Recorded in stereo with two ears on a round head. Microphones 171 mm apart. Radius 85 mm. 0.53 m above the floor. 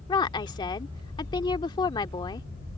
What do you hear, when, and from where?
0.1 s a woman speaking: 25° left (ahead or behind)